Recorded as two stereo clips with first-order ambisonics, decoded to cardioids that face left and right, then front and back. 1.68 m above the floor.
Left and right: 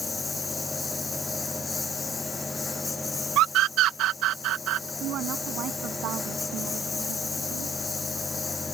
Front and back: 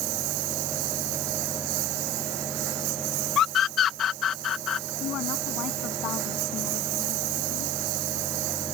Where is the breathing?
No breathing in this recording.